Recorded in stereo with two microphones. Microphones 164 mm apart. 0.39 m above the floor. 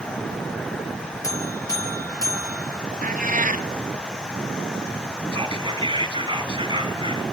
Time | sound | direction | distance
1.2 | a buzzer | 20° left (ahead or behind) | 4.5 m
3.0 | a cat meowing | 55° right (ahead or behind) | 0.8 m
5.3 | whispering | 30° right (ahead or behind) | 3 m